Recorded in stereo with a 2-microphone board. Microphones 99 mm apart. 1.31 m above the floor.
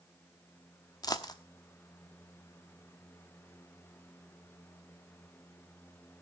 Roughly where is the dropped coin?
Left.